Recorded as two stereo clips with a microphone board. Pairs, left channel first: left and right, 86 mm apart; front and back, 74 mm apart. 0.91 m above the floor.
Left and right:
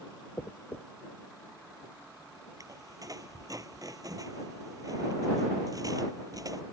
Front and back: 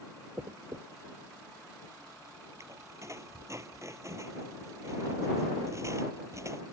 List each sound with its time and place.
0.4 s a dropped coin: 145° left
2.6 s a squeak: 135° right